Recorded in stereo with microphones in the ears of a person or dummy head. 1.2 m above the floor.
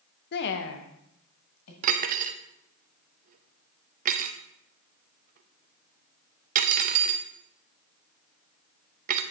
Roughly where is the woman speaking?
Left.